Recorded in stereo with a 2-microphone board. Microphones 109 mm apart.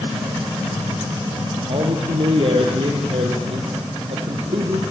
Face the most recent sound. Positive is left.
turn(degrees=-60)  # may be behind; listen again after turning